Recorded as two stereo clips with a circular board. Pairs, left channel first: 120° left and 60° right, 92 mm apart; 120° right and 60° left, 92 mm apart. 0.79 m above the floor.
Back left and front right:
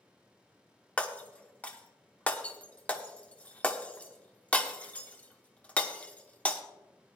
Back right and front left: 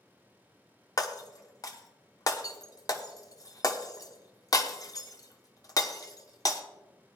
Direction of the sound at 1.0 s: 165° right.